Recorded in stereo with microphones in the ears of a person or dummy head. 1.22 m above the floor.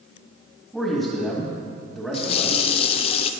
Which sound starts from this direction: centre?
A man speaking, at 0.7 s.